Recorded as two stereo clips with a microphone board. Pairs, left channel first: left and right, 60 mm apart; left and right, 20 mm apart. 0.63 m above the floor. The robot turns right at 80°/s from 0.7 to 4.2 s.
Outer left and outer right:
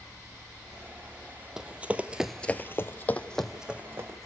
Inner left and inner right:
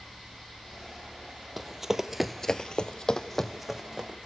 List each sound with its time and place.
1.6 s running footsteps: 10° right (ahead or behind), 1.3 m; by 4.3 s 50° right (ahead or behind), 3 m